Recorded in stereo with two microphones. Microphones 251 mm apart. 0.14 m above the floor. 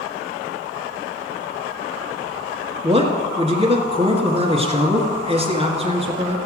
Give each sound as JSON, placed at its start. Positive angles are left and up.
{"t": 2.8, "sound": "a man speaking", "side_deg": -25, "distance_m": 1.7}